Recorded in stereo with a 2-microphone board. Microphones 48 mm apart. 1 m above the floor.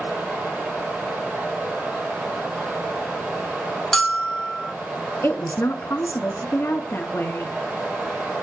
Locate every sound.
0.0 s running water: 30° right (ahead or behind), 8.5 m
3.9 s a bell: 10° left (ahead or behind), 2 m
5.2 s a woman speaking: 60° left (ahead or behind), 1.6 m